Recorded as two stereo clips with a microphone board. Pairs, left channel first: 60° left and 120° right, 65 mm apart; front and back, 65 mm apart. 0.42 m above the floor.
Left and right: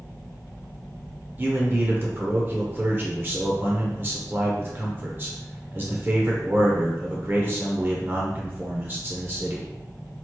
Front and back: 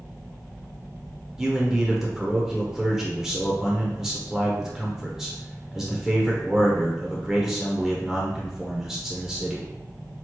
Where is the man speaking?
100° right, 0.9 m.